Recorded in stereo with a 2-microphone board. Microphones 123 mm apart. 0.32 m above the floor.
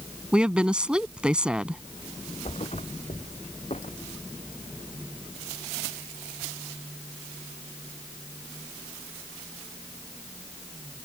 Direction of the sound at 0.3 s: 10° right (ahead or behind).